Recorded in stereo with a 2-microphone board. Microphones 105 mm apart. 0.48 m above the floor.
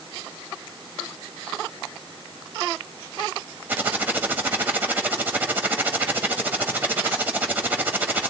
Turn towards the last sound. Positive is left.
turn(degrees=-20)  # may be behind; listen again after turning